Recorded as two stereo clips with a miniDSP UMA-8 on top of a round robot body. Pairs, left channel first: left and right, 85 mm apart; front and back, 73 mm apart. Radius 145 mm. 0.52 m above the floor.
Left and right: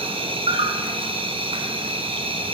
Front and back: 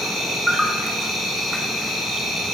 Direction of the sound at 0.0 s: 90° right.